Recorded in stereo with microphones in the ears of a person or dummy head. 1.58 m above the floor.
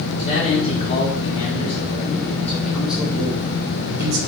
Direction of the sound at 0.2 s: 40° left (ahead or behind).